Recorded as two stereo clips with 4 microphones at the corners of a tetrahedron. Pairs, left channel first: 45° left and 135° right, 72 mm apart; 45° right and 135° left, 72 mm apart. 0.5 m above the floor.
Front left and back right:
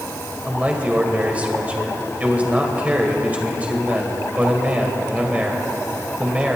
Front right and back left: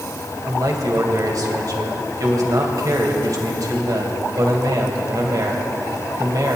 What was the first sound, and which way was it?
A man speaking, 155° left.